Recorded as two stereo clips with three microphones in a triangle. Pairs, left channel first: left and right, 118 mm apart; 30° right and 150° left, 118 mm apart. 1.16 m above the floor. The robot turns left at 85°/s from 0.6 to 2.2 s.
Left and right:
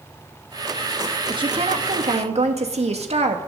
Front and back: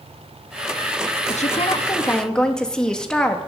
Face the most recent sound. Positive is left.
turn(degrees=-115)